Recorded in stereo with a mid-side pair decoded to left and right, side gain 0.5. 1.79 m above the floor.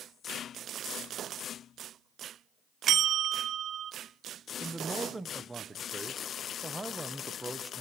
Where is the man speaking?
10° right, 1.6 m.